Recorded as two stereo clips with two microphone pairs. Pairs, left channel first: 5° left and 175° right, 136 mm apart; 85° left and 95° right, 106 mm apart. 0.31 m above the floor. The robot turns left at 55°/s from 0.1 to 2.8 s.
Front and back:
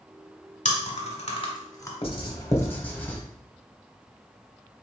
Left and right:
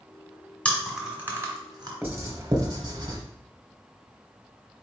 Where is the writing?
25° right, 0.8 m; by 3.2 s 65° right, 0.8 m.